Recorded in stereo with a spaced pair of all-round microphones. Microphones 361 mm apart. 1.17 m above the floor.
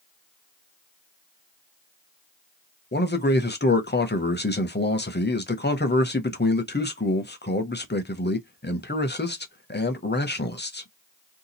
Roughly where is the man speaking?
Left.